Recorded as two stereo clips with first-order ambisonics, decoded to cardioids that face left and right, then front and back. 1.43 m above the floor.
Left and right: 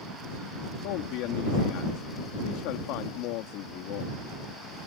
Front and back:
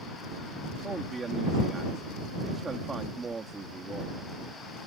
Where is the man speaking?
105° left.